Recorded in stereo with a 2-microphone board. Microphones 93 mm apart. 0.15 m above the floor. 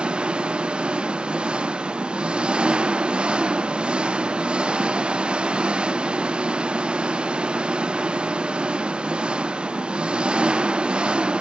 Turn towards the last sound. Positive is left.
turn(degrees=-10)  # may be behind; listen again after turning